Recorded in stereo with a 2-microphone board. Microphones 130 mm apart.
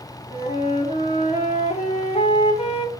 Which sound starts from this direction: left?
A flute, at 0.3 s.